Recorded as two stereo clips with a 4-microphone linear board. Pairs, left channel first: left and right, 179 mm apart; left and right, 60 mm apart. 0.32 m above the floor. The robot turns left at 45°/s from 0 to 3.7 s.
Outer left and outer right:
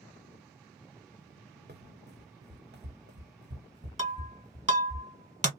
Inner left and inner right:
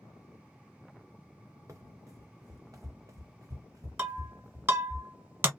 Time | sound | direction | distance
1.7 | running footsteps | 65° right (ahead or behind) | 1.0 m
4.0 | breaking glass | 40° right (ahead or behind) | 1.5 m